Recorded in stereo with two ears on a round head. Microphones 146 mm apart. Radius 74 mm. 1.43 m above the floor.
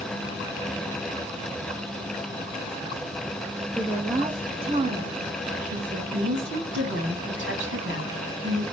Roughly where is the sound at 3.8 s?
Centre.